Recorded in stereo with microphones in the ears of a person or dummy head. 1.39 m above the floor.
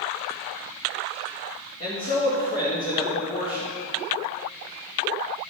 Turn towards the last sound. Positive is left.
turn(degrees=40)  # may be behind; listen again after turning